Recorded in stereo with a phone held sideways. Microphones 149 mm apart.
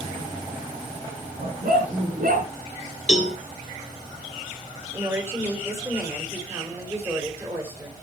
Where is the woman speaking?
20° right (ahead or behind), 5 m.